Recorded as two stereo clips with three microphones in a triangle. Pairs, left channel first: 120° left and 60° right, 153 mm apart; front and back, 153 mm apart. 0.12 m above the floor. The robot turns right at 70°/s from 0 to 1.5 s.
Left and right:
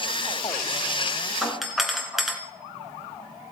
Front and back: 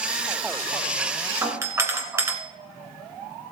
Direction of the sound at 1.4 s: 150° right.